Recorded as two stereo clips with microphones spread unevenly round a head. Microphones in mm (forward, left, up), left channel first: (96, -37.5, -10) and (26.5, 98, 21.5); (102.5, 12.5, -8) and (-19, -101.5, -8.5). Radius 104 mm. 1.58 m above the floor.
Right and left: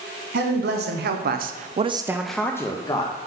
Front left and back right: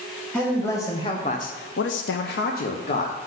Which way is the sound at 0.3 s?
130° left.